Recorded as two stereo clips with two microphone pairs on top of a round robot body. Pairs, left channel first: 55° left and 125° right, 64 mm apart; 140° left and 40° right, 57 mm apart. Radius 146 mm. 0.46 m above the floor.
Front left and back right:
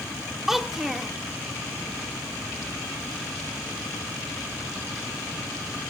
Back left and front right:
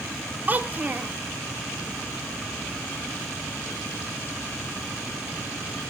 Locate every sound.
0.5 s a child speaking: 40° right, 0.5 m